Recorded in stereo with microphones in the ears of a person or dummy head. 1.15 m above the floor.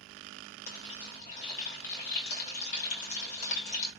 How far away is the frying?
About 2.5 m.